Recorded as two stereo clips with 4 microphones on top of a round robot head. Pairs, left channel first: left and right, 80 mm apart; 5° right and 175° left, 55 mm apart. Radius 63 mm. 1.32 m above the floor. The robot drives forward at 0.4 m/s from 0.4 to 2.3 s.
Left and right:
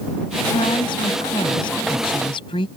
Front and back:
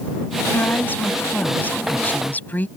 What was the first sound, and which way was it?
A woman speaking, 50° left.